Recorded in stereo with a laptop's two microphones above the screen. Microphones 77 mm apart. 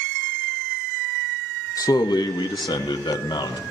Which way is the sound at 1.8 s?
45° left (ahead or behind).